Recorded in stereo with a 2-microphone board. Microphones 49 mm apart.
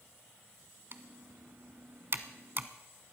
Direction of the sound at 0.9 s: 50° right (ahead or behind).